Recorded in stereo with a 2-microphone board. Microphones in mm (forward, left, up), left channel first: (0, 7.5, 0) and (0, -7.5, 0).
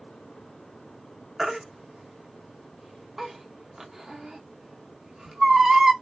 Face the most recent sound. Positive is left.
turn(degrees=-30)  # may be behind; listen again after turning